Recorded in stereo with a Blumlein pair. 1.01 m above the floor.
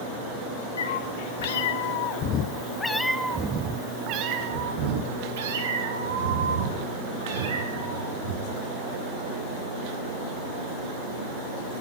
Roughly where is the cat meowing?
Left.